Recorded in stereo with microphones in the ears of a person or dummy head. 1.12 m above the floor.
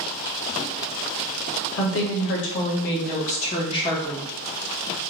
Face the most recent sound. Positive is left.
turn(degrees=15)  # may be behind; listen again after turning